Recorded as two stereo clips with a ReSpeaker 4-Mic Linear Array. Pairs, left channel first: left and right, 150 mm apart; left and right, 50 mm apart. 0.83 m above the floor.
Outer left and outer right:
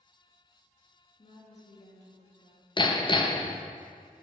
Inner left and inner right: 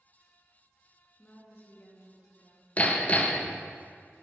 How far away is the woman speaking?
About 1.4 m.